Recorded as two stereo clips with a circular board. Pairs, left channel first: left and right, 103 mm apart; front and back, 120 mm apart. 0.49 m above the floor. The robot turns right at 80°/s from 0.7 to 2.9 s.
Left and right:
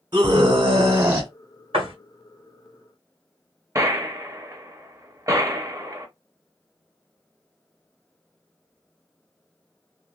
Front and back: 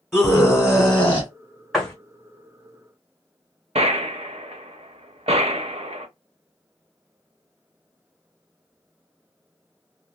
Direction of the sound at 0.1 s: 90° right.